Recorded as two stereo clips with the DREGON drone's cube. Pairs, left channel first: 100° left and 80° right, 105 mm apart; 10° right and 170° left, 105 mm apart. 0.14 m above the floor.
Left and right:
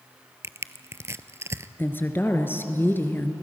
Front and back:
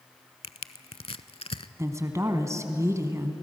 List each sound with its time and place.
0.4 s crushing: 20° right, 0.6 m
1.8 s a woman speaking: 145° left, 1.4 m